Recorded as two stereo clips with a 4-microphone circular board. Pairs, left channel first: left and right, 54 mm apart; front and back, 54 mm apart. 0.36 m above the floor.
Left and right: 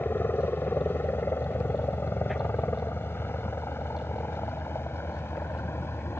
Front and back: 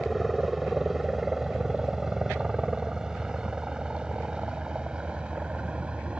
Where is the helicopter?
90° left; by 6.2 s 115° left.